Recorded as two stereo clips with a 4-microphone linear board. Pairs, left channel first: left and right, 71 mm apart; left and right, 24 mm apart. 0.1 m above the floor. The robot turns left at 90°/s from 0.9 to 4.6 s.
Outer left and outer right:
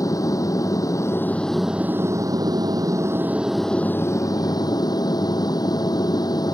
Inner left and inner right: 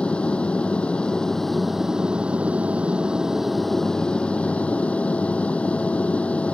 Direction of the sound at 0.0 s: 60° left.